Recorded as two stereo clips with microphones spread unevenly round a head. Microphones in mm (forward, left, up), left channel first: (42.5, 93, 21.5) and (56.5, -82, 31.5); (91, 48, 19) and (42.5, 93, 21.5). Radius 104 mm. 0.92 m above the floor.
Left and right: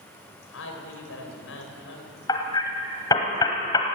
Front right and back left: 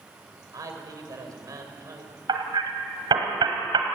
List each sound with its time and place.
0.5 s a man speaking: 105° left, 4 m
2.3 s hammering: 170° left, 1.7 m